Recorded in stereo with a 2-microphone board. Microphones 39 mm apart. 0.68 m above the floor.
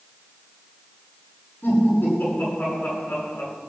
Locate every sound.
1.6 s laughter: 55° left (ahead or behind), 10 m